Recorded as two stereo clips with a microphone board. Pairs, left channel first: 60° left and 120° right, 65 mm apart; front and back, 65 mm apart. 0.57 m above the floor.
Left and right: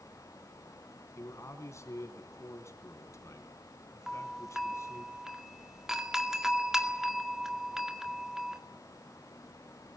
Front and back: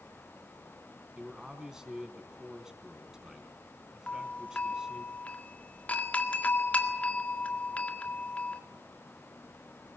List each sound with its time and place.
1.2 s a man speaking: 100° left, 4 m
4.1 s a doorbell: 40° right, 1.9 m